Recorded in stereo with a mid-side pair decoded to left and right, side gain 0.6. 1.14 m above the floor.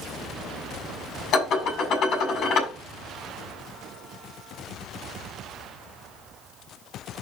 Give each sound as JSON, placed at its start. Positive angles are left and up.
{"t": 1.3, "sound": "dishes clattering", "azimuth_deg": 50, "distance_m": 6.5}